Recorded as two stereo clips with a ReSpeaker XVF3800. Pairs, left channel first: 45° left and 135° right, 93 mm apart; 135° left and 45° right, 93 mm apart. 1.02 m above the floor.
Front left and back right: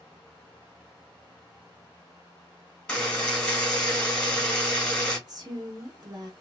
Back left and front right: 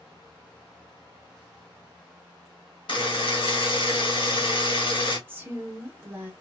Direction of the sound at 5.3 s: 105° right.